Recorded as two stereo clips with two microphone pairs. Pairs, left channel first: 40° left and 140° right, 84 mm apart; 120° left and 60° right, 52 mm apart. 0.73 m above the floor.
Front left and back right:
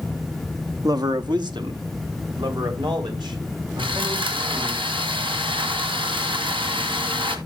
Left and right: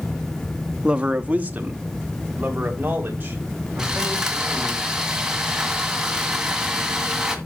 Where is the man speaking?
125° right, 0.7 m; by 4.8 s 115° right, 6 m.